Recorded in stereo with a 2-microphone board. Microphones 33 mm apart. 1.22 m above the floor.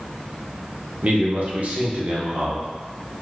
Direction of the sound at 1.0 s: 45° right (ahead or behind).